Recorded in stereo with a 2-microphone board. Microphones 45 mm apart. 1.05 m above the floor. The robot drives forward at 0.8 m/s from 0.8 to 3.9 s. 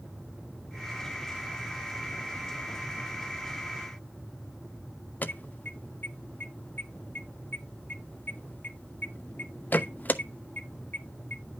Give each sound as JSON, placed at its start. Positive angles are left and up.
{"t": 5.2, "sound": "an alarm", "side_deg": 45, "distance_m": 0.8}